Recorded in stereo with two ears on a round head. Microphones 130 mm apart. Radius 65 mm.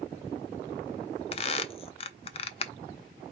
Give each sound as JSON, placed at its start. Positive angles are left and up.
{"t": 1.3, "sound": "a squeak", "side_deg": 40, "distance_m": 0.6}